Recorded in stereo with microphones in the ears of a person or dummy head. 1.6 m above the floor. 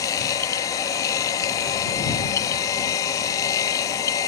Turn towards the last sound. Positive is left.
turn(degrees=20)  # may be behind; listen again after turning